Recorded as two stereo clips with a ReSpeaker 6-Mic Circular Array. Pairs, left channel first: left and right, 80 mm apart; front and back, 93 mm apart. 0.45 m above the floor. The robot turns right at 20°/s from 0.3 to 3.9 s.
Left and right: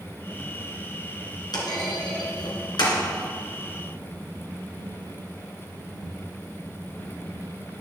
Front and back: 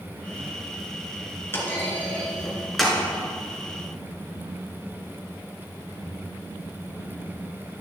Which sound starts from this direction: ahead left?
A clunk, at 1.5 s.